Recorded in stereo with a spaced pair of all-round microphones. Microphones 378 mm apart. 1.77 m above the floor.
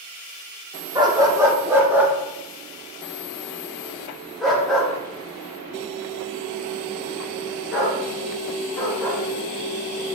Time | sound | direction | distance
0.9 | a dog barking | 10° right (ahead or behind) | 1.3 m